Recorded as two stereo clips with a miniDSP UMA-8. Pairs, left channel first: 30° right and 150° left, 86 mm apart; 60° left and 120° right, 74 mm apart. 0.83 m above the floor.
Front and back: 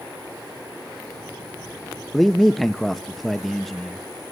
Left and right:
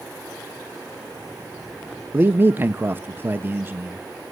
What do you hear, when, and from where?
2.1 s a man speaking: 115° right, 0.7 m